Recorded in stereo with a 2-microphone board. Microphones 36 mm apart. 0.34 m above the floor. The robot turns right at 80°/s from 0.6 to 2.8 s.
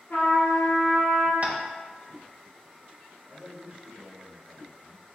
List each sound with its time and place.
0.1 s a trumpet: 85° left, 1.3 m; by 1.3 s 140° left, 1.3 m
1.4 s tapping: 40° right (ahead or behind), 0.5 m; by 1.6 s 50° right (ahead or behind), 0.5 m
3.3 s a man speaking: 20° right (ahead or behind), 1.1 m